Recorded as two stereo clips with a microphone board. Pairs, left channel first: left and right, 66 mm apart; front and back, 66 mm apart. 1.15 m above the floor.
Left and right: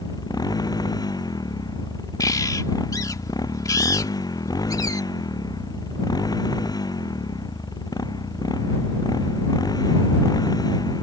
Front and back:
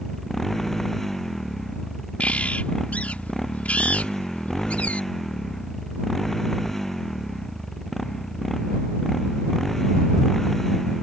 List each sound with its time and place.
0.0 s a motorcycle: 85° left
2.2 s a bird: 70° left